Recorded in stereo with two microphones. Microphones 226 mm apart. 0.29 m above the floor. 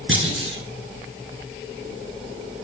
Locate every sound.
0.1 s a clunk: 65° right (ahead or behind), 3 m